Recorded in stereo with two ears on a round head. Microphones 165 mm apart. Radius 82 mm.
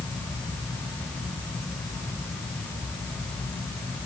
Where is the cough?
I don't hear a cough.